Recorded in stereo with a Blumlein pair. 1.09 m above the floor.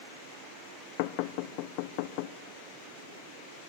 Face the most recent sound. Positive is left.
turn(degrees=45)